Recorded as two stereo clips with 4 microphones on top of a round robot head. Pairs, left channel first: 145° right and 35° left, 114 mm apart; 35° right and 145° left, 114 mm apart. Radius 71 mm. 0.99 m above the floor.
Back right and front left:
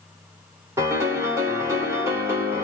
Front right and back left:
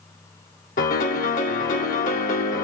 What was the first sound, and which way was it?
A piano, 35° right.